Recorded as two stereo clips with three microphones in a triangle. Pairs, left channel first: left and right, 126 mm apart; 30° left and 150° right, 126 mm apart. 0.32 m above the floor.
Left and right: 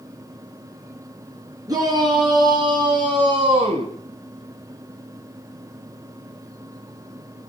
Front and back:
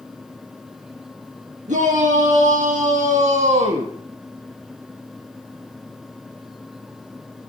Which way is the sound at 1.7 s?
150° right.